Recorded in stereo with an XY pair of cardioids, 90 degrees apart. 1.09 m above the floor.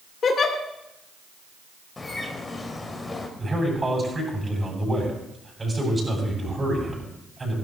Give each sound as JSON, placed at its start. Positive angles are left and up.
{"t": 0.2, "sound": "a giggle", "azimuth_deg": 55, "distance_m": 1.9}
{"t": 2.0, "sound": "a bird", "azimuth_deg": 30, "distance_m": 2.5}
{"t": 3.4, "sound": "a man speaking", "azimuth_deg": -25, "distance_m": 8.5}